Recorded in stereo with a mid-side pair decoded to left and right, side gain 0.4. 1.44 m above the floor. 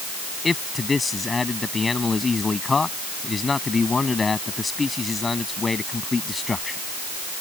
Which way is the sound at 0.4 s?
30° left.